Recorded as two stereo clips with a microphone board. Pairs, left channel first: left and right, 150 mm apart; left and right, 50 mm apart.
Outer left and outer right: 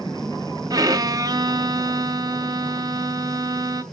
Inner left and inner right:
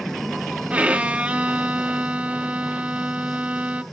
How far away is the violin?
About 0.7 m.